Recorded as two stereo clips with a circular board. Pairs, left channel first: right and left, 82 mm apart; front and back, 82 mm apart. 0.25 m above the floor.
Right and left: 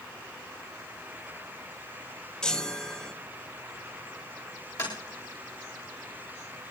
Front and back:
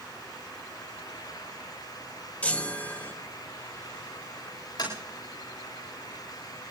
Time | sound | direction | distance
2.4 | a chime | 30° right | 1.5 m
4.8 | tapping | 40° right | 8 m